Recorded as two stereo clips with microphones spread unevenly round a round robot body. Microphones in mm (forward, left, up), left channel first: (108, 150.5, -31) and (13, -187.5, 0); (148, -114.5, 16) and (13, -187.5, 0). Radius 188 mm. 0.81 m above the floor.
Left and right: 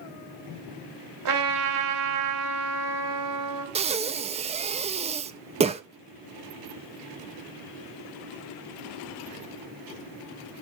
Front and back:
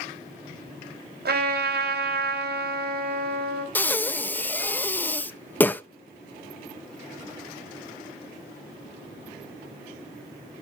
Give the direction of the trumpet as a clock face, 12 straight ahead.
5 o'clock.